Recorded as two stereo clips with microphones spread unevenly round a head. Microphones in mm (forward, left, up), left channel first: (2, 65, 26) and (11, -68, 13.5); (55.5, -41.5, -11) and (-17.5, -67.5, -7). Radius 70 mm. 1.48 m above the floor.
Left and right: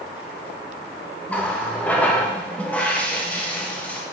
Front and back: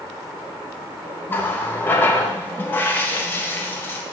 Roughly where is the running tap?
Ahead left.